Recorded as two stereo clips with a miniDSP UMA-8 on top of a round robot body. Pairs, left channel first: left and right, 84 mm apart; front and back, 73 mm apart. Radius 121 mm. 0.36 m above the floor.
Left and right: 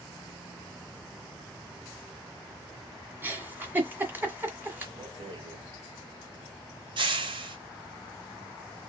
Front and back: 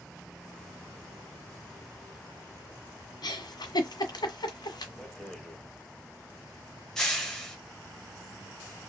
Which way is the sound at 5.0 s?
80° right.